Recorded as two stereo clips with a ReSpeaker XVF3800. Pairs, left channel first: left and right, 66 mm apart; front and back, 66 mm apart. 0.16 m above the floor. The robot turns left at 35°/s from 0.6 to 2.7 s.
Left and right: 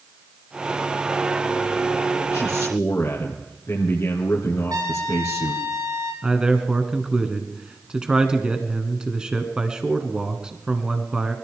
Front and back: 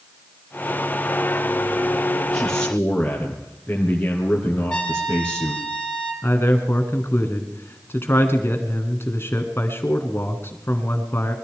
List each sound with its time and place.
2.3 s a man speaking: 75° left, 2.5 m; by 5.6 s 60° left, 2.5 m
4.7 s a trumpet: 75° right, 3.5 m
6.2 s a man speaking: 20° right, 1.5 m